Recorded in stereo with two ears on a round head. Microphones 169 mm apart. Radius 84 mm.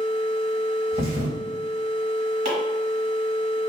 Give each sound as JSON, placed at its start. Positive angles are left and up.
{"t": 0.9, "sound": "a thud", "side_deg": -35, "distance_m": 1.7}
{"t": 2.5, "sound": "chopping", "side_deg": -50, "distance_m": 1.3}